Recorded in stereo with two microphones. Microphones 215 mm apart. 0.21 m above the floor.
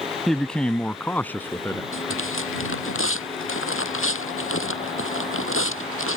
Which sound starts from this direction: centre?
A man speaking, at 0.3 s.